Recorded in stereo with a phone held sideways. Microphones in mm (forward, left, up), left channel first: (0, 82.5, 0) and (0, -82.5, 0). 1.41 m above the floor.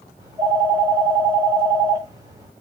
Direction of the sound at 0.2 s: 20° right (ahead or behind).